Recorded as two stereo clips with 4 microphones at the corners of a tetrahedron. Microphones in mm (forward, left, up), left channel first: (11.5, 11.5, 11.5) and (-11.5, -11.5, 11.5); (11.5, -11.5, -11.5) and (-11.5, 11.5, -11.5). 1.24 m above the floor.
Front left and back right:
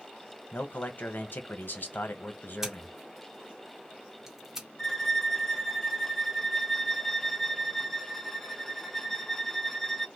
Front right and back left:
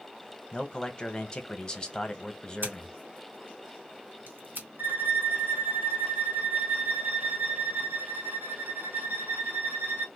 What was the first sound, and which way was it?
A man speaking, 20° left.